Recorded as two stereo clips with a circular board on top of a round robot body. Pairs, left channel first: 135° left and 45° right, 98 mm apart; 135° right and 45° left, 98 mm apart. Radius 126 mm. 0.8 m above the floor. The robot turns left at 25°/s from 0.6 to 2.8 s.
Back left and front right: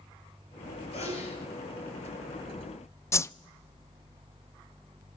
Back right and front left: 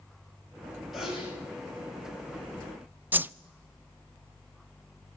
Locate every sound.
0.9 s a sneeze: 135° left, 6.5 m; by 1.4 s 120° left, 6.5 m
3.1 s a whoosh: 100° left, 0.6 m